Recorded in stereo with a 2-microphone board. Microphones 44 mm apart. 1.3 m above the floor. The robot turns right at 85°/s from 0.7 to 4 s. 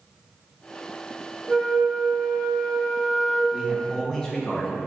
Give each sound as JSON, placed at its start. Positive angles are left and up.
{"t": 1.5, "sound": "a flute", "azimuth_deg": -165, "distance_m": 0.9}
{"t": 3.5, "sound": "a man speaking", "azimuth_deg": -25, "distance_m": 1.5}